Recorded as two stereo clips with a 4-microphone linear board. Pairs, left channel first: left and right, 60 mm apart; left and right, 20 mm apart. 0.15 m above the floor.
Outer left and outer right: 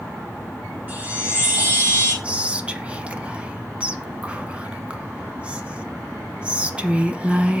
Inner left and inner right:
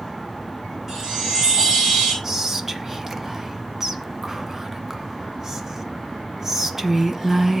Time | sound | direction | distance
0.9 | a chime | 25° right (ahead or behind) | 5.5 m
2.2 | whispering | 20° right (ahead or behind) | 1.0 m